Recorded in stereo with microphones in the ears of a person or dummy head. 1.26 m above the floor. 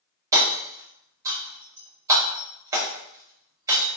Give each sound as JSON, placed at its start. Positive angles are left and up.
{"t": 0.3, "sound": "hammering", "side_deg": -20, "distance_m": 1.0}